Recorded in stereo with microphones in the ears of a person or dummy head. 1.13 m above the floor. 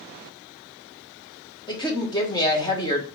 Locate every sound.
1.7 s a woman speaking: 20° left (ahead or behind), 1.1 m